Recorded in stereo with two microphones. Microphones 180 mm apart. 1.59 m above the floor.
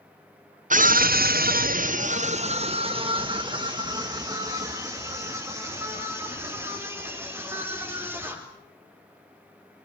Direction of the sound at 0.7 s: 45° right (ahead or behind).